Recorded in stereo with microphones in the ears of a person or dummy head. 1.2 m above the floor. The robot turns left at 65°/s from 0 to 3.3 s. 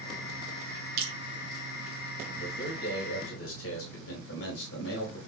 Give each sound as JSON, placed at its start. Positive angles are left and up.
{"t": 1.0, "sound": "dripping", "side_deg": -75, "distance_m": 5.5}
{"t": 2.4, "sound": "a man speaking", "azimuth_deg": 140, "distance_m": 4.5}